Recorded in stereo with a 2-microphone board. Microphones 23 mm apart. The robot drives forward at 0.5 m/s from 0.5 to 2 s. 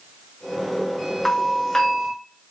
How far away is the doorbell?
About 1.0 m.